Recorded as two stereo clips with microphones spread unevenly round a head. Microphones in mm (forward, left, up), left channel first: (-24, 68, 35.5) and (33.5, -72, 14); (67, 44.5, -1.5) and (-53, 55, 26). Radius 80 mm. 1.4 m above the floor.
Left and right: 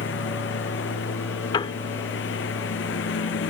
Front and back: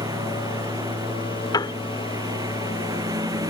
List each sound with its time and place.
0.0 s a lawn mower: 115° left
1.5 s a piano: 50° left